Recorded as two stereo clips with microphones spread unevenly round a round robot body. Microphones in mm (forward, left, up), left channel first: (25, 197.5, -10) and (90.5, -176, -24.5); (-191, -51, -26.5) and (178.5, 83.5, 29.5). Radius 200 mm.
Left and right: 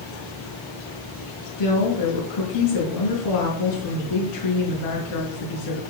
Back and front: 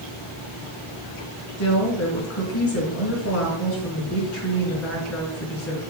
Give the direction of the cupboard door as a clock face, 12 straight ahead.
I don't hear a cupboard door.